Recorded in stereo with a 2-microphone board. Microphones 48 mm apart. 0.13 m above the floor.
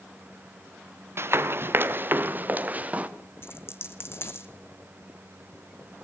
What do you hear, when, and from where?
1.2 s running footsteps: 55° right (ahead or behind), 2.0 m; by 3.1 s 30° right (ahead or behind), 2 m
3.4 s a dropped coin: 55° left (ahead or behind), 1.4 m